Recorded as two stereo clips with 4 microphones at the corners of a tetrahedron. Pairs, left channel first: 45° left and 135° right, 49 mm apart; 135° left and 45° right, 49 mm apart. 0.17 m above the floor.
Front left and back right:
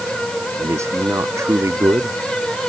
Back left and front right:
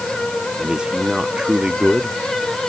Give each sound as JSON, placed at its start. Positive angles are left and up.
{"t": 0.6, "sound": "a man speaking", "azimuth_deg": -115}